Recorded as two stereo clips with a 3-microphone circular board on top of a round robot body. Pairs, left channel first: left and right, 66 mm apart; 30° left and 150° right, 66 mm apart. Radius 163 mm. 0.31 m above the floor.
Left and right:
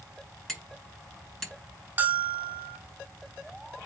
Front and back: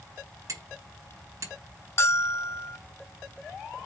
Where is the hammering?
175° left, 4 m.